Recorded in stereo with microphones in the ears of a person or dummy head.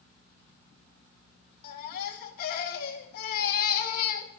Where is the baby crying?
50° left (ahead or behind), 2.0 m.